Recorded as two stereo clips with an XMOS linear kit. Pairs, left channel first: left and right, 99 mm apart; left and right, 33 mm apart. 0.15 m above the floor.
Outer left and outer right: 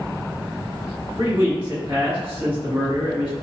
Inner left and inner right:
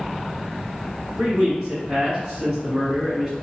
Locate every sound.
1.2 s a man speaking: 20° right (ahead or behind), 1.7 m